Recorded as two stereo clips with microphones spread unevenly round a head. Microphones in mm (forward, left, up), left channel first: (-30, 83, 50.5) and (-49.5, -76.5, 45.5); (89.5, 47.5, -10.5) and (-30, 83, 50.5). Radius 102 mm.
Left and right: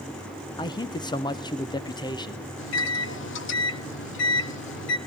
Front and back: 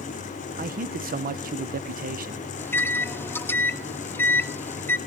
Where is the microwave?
65° left, 0.9 m.